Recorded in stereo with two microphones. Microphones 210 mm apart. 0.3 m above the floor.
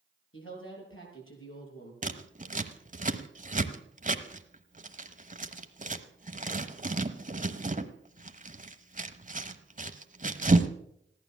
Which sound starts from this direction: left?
A woman speaking, at 0.3 s.